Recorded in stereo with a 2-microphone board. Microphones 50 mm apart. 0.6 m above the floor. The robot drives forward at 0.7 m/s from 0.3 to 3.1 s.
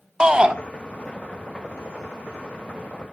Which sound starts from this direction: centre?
A shout, at 0.2 s.